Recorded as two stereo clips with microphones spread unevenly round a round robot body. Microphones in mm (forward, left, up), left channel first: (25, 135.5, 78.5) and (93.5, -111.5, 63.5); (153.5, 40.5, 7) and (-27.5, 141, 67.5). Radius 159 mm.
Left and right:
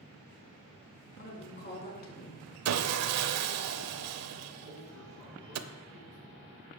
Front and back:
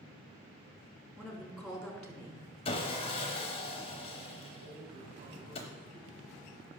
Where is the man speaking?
175° right, 6 m.